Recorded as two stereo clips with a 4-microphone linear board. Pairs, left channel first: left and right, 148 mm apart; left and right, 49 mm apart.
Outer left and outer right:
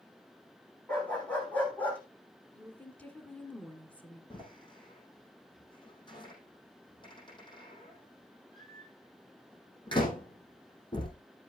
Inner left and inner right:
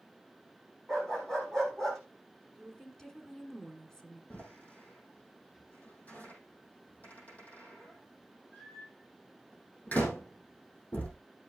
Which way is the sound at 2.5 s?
10° left (ahead or behind).